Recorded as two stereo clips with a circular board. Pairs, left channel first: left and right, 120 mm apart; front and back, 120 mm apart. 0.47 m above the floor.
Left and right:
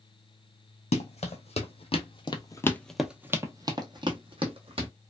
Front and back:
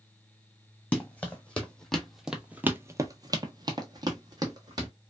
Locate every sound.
0.9 s running footsteps: 75° left, 1.1 m; by 4.9 s 125° right, 1.2 m